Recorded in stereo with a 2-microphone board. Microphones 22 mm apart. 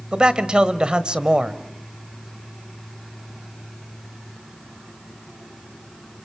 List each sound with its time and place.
0.1 s a man speaking: 45° right (ahead or behind), 1.2 m